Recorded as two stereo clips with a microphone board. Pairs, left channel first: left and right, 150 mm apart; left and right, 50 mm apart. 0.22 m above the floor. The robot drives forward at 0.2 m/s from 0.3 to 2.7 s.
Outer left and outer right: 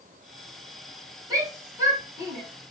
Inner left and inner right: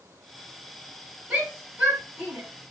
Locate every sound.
1.3 s a shout: 20° right (ahead or behind), 1.0 m